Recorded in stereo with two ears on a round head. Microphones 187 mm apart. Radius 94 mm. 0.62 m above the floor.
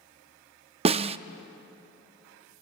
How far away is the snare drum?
About 0.5 m.